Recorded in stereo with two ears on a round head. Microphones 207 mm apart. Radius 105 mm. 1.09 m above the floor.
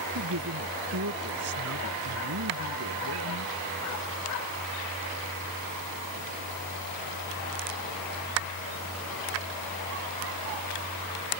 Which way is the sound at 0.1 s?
75° right (ahead or behind).